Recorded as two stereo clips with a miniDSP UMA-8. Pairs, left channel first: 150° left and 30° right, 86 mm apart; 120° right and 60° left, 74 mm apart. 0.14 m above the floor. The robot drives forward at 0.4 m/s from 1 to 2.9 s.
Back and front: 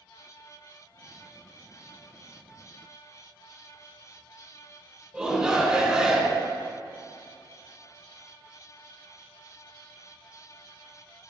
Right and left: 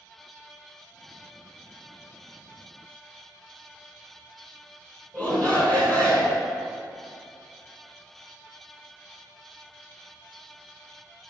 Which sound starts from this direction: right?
A shout, at 5.1 s.